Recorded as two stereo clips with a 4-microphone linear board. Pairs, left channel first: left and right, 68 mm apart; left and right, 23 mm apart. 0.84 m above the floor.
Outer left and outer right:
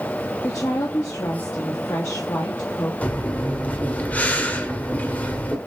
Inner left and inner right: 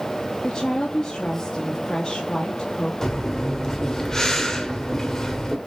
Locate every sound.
0.4 s a woman speaking: 50° left (ahead or behind), 1.3 m
3.0 s breathing: 25° left (ahead or behind), 1.2 m